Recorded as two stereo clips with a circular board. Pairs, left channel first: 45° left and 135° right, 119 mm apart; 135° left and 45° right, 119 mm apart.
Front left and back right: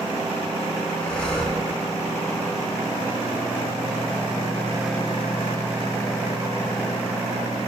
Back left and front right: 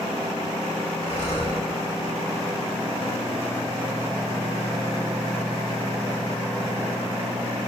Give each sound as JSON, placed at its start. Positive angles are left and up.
{"t": 1.0, "sound": "breathing", "azimuth_deg": 125, "distance_m": 4.5}